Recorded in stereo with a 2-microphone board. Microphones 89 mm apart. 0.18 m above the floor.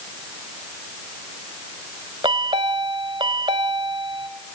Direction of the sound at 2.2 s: 65° right (ahead or behind).